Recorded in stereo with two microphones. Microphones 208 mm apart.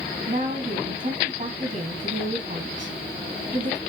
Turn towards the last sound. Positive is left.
turn(degrees=-40)  # may be behind; listen again after turning